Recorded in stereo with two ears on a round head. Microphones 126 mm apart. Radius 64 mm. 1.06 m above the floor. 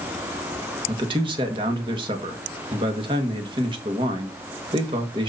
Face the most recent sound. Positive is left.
turn(degrees=-35)  # may be behind; listen again after turning